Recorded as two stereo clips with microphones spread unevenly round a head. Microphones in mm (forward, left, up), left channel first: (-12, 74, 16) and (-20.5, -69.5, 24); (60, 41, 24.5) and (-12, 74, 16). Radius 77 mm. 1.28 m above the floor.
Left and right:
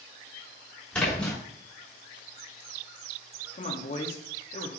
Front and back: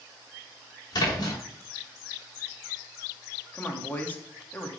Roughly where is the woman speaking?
Ahead left.